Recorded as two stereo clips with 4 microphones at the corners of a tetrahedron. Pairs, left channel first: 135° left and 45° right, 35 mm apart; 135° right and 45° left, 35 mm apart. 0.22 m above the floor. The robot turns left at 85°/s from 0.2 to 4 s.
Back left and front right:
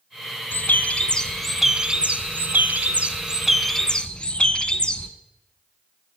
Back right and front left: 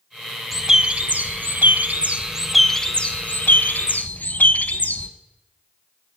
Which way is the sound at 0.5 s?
130° left.